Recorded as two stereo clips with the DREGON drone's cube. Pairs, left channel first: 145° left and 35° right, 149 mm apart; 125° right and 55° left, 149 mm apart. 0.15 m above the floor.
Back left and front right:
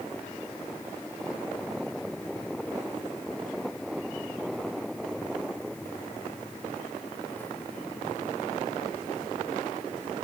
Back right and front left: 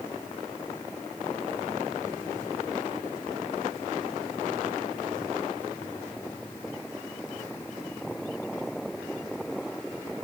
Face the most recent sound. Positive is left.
No sound to turn to.